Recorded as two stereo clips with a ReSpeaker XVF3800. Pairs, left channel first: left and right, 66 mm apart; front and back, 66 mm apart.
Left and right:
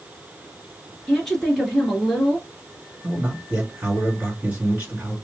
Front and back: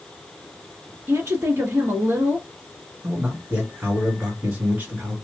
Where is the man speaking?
140° right, 2.0 m.